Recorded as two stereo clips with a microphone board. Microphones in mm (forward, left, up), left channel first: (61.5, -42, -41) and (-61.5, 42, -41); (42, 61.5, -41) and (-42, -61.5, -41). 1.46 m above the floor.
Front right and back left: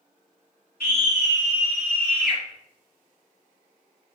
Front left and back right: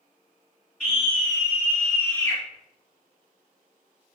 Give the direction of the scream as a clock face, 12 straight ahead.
1 o'clock.